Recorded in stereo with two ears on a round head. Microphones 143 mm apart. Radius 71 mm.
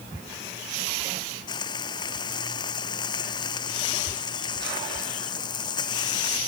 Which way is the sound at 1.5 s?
25° left (ahead or behind).